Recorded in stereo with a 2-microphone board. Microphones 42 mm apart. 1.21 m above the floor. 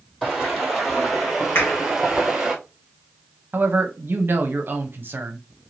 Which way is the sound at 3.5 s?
55° right (ahead or behind).